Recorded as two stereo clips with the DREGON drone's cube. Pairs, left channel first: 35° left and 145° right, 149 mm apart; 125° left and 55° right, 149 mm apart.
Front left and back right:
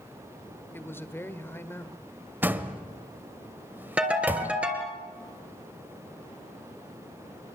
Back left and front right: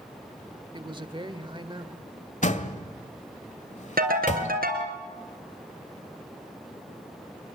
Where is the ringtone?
65° right, 3.5 m.